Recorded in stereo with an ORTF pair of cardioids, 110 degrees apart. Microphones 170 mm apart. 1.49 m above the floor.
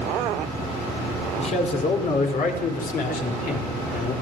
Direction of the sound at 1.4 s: 40° left.